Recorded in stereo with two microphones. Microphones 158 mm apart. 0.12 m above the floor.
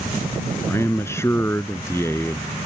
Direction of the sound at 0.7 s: 15° left (ahead or behind).